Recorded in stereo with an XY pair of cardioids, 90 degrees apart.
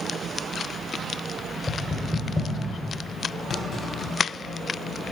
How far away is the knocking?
About 2.5 m.